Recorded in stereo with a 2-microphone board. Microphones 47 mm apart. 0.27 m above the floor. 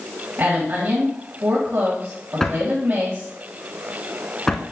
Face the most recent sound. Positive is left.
turn(degrees=10)  # may be behind; listen again after turning